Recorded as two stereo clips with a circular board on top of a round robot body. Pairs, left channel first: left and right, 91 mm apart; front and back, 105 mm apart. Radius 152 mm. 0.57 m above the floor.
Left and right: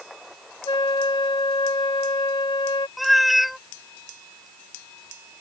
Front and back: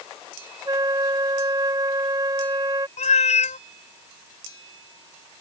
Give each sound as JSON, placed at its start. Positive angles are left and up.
{"t": 0.7, "sound": "a flute", "azimuth_deg": 125}
{"t": 3.0, "sound": "a cat meowing", "azimuth_deg": 0}